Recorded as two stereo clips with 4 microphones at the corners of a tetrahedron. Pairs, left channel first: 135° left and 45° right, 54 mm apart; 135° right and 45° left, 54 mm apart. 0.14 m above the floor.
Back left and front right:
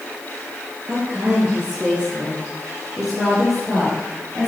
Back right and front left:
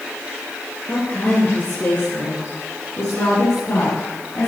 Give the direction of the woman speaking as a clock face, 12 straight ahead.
3 o'clock.